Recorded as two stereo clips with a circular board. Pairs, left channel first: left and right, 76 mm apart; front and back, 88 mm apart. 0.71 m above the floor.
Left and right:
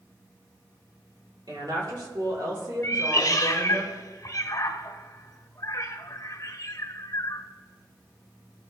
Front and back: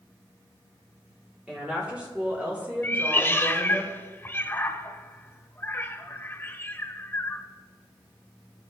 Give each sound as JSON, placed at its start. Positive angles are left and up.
{"t": 1.5, "sound": "a woman speaking", "azimuth_deg": -100, "distance_m": 2.5}
{"t": 2.8, "sound": "a cat meowing", "azimuth_deg": 60, "distance_m": 0.6}